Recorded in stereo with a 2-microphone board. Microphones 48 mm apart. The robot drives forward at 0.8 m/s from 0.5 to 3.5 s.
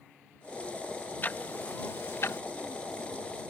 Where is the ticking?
40° left (ahead or behind); by 2.4 s 60° left (ahead or behind).